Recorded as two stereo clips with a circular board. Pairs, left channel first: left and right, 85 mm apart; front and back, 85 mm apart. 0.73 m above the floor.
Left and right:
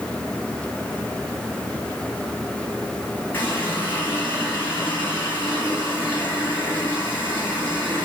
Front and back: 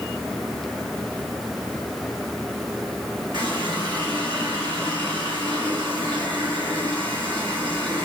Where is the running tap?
155° left, 3.5 m.